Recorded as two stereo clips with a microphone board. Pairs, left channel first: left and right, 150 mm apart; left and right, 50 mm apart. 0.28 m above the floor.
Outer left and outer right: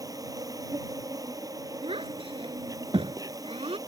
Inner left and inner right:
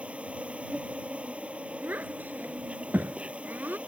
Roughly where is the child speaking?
Right.